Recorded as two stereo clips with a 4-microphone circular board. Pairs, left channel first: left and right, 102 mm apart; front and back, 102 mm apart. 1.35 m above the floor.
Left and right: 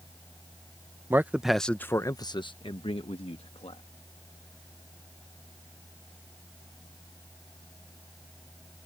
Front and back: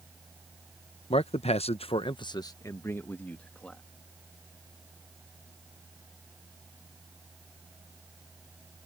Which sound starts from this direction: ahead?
A man speaking, at 1.1 s.